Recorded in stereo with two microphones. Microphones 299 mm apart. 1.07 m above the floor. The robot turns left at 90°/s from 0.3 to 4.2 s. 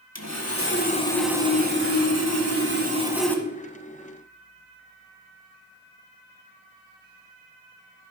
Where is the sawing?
85° left, 1.5 m; by 3.4 s 160° left, 1.5 m.